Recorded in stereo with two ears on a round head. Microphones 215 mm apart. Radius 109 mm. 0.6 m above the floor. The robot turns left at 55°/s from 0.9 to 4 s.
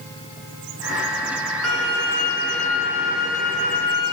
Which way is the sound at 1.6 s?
75° left.